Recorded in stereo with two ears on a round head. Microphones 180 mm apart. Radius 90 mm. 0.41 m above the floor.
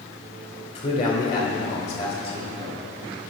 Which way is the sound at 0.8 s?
40° left (ahead or behind).